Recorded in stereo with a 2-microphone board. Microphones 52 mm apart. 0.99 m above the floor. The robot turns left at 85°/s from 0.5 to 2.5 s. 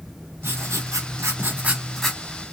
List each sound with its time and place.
0.4 s writing: 50° right, 1.7 m; by 2.2 s 165° left, 1.7 m